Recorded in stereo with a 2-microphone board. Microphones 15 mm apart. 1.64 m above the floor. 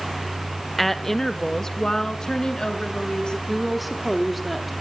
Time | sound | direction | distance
0.8 | a woman speaking | 10° left (ahead or behind) | 1.8 m
3.5 | a woman speaking | centre (ahead or behind) | 3 m